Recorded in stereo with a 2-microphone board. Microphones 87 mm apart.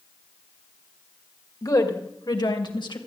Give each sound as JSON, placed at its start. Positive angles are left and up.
{"t": 1.6, "sound": "a woman speaking", "side_deg": 45, "distance_m": 2.0}